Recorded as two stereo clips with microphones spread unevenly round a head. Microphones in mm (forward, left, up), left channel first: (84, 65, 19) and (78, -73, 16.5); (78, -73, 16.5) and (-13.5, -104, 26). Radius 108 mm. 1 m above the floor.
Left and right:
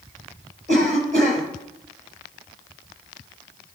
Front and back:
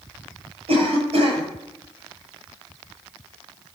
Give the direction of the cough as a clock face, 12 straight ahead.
5 o'clock.